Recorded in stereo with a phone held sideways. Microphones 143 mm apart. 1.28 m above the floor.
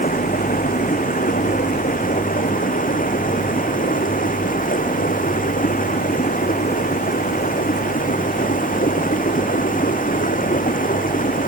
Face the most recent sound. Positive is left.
turn(degrees=75)  # may be behind; listen again after turning